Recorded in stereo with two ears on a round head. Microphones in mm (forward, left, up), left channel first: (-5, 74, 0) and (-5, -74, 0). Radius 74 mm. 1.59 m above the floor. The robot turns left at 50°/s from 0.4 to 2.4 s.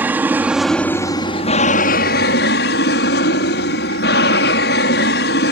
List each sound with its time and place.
0.0 s an aircraft: 170° right; by 5.5 s 90° left